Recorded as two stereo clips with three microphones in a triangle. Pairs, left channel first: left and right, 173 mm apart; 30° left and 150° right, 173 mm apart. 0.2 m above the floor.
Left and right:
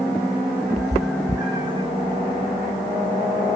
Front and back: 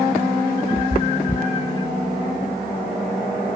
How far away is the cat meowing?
About 1.0 m.